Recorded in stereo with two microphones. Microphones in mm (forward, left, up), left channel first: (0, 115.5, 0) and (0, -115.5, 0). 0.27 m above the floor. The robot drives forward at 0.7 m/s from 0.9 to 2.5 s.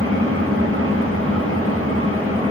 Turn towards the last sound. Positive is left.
turn(degrees=-65)  # may be behind; listen again after turning